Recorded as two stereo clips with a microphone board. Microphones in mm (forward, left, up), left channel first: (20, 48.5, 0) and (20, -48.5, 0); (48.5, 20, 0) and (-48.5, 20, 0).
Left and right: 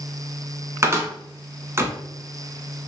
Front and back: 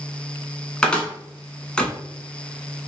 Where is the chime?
I don't hear a chime.